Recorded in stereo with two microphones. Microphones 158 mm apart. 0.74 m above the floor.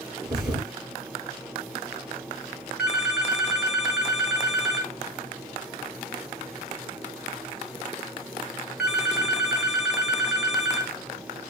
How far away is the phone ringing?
About 0.8 m.